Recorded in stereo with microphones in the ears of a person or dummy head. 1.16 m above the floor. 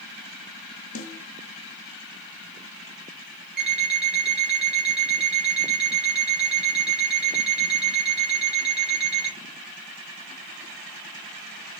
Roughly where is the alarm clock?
Centre.